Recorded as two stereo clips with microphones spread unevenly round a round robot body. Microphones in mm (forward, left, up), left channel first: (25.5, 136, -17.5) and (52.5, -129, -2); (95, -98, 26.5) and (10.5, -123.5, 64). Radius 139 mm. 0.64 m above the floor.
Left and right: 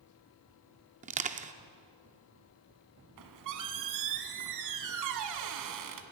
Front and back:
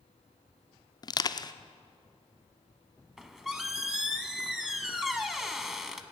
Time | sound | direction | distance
1.0 | crushing | 20° right | 0.7 m
3.2 | a squeak | 85° right | 1.2 m